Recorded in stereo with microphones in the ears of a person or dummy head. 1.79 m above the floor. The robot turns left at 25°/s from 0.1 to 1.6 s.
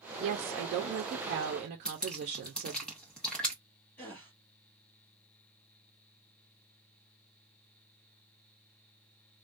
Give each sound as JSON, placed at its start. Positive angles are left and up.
{"t": 0.2, "sound": "a woman speaking", "azimuth_deg": -90, "distance_m": 0.7}
{"t": 1.9, "sound": "dripping", "side_deg": 5, "distance_m": 0.8}
{"t": 4.0, "sound": "a gasp", "side_deg": 10, "distance_m": 1.4}